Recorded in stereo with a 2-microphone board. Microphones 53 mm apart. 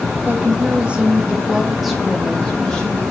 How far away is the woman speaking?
About 1.3 m.